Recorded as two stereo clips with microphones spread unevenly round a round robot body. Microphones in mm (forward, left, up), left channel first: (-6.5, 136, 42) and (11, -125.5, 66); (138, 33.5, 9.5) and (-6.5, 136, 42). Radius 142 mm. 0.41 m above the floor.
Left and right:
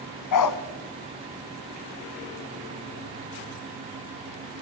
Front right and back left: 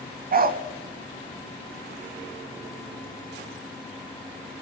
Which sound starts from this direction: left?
A dog barking, at 0.3 s.